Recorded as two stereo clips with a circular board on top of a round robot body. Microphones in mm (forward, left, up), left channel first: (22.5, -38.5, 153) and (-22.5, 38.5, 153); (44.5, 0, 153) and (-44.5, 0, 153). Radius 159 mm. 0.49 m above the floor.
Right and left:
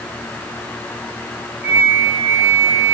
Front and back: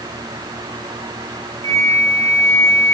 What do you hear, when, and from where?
1.6 s a flute: 55° left, 1.8 m